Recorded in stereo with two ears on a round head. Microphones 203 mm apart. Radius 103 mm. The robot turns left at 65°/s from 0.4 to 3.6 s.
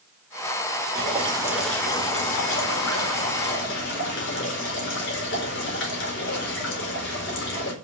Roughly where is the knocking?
No knocking in this recording.